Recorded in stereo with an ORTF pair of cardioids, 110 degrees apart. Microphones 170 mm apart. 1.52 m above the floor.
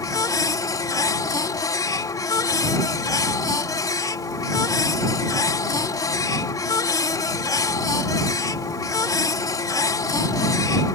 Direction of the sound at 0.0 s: 20° left.